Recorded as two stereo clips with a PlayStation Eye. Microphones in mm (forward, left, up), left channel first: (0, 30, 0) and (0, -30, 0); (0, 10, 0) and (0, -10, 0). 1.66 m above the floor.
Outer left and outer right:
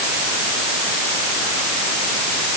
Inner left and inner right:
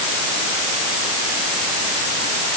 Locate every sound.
Only background noise.